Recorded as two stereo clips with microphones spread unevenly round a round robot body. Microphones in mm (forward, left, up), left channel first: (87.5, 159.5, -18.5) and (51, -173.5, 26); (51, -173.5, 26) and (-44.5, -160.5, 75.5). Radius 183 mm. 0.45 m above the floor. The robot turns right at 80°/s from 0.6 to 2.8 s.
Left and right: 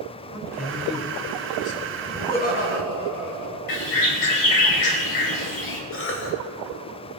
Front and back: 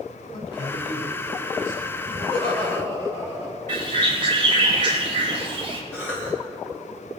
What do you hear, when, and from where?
0.3 s a man speaking: 10° right, 2.5 m; by 2.0 s 100° left, 2.5 m
2.1 s laughter: 5° right, 4 m; by 3.6 s 50° left, 4 m
3.7 s a bird: 120° left, 3.5 m
5.9 s a cough: 40° left, 2.5 m